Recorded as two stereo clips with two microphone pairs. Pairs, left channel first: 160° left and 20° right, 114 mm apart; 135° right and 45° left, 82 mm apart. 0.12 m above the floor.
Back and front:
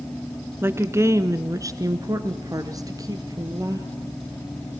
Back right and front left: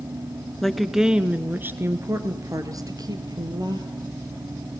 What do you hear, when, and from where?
0.6 s a woman speaking: 50° right, 1.3 m; by 3.9 s 35° left, 2.5 m